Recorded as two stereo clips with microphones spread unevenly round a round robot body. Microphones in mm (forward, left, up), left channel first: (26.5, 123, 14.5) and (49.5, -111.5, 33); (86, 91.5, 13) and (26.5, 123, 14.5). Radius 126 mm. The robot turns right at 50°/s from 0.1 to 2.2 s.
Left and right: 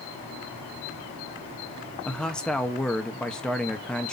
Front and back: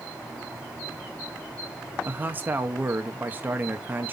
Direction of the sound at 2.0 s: 160° left.